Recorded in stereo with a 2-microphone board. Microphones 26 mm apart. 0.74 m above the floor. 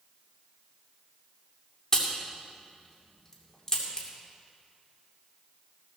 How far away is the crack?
About 2.5 m.